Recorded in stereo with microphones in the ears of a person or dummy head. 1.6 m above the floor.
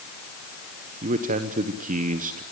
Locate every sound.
1.0 s a man speaking: 40° right (ahead or behind), 1.2 m